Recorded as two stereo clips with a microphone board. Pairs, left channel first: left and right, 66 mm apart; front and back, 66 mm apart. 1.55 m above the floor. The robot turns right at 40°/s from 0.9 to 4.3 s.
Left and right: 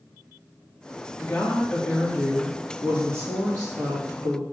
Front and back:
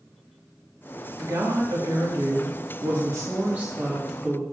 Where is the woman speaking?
145° left, 2 m; by 4.4 s 90° right, 2 m.